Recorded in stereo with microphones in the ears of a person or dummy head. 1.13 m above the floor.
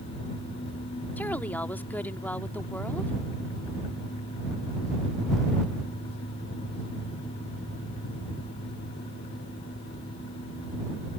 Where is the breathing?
I don't hear breathing.